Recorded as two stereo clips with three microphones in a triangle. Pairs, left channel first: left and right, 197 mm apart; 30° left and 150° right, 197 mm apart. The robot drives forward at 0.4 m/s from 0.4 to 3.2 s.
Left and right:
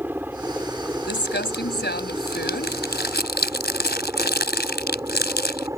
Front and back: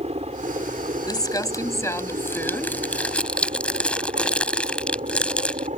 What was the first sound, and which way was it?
A helicopter, 165° right.